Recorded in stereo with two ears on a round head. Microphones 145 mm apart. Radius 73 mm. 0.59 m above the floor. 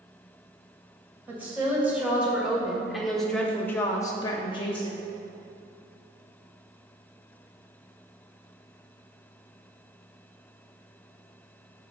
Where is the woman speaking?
10° right (ahead or behind), 2.5 m; by 5.0 s 30° left (ahead or behind), 1.1 m.